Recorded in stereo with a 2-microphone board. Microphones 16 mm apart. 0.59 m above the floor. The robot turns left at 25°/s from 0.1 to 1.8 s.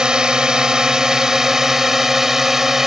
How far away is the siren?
No siren in this recording.